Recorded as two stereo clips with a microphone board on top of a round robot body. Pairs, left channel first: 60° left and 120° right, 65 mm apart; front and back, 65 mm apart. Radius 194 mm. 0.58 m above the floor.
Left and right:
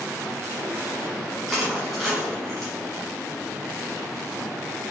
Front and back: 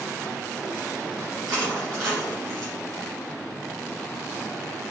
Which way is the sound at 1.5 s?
150° left.